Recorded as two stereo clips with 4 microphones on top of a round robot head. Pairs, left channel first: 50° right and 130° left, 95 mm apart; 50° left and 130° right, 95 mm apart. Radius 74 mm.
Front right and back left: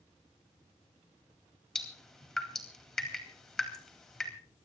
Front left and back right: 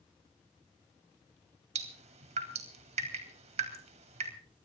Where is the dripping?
140° right, 4 m.